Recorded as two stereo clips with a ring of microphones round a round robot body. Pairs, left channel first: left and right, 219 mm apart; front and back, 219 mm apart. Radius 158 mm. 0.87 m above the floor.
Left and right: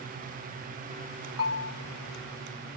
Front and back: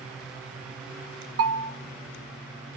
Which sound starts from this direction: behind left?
A bell, at 1.4 s.